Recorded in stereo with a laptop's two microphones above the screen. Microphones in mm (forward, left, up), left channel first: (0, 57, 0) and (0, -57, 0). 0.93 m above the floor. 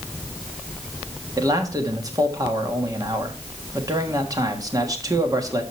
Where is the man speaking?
30° right (ahead or behind), 1.4 m.